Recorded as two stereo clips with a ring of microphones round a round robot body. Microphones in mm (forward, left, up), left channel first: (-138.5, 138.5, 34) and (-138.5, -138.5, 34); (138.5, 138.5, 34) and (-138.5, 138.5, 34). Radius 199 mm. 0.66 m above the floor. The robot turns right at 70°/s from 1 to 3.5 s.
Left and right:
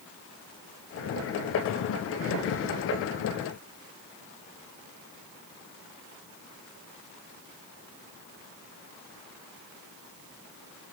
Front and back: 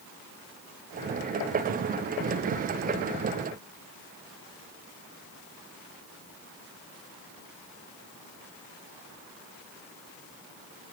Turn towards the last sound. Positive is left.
No sound to turn to.